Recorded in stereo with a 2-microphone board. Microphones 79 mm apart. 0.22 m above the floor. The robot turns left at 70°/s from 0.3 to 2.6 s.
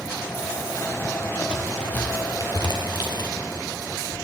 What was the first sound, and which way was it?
A crack, 15° right (ahead or behind).